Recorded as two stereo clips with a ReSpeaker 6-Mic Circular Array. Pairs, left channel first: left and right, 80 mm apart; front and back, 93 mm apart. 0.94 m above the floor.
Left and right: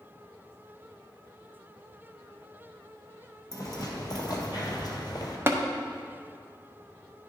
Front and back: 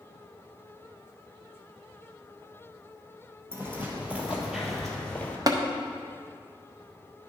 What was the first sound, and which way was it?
Footsteps, 120° left.